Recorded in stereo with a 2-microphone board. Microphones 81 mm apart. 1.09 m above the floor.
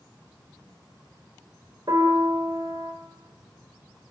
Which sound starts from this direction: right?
A piano, at 1.9 s.